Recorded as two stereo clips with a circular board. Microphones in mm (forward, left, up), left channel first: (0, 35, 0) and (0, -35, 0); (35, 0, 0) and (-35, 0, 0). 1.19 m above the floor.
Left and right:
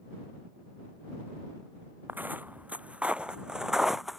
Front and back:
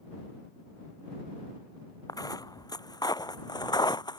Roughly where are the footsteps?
Ahead right.